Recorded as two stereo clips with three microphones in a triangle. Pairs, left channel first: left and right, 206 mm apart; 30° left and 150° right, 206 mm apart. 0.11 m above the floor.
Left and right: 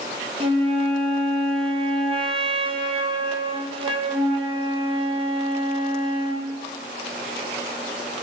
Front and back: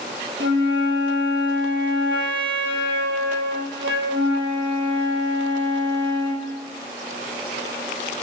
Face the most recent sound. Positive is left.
turn(degrees=-150)